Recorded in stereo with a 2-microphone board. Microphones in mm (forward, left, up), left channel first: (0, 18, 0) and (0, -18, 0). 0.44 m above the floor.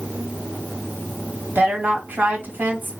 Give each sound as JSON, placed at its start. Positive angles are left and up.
{"t": 1.6, "sound": "a woman speaking", "side_deg": -65, "distance_m": 2.0}